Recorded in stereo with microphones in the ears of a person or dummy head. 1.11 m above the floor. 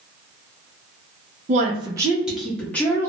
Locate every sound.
1.5 s a woman speaking: 35° right (ahead or behind), 0.6 m; by 3.1 s 15° left (ahead or behind), 1.0 m